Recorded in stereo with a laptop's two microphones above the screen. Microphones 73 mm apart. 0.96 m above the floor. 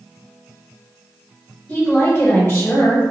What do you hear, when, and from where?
1.7 s a woman speaking: 20° left (ahead or behind), 1.9 m; by 3.0 s 40° left (ahead or behind), 1.5 m